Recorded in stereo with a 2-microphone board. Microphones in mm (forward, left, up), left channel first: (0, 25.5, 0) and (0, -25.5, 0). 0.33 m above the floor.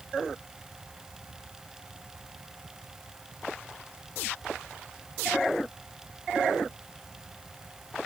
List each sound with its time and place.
Only background noise.